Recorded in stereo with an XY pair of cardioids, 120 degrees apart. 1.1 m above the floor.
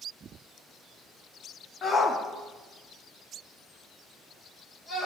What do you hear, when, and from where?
1.8 s a shout: 35° left, 1.3 m; by 5.1 s 50° left, 4 m